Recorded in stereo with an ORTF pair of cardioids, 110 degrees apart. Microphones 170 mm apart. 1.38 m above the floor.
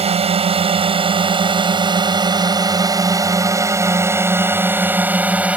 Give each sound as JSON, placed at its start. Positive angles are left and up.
{"t": 0.0, "sound": "a drone", "azimuth_deg": -40}